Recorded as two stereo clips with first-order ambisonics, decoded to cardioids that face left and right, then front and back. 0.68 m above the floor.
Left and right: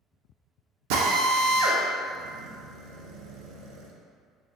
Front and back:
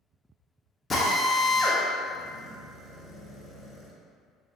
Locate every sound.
0.9 s a drill: 75° right, 0.5 m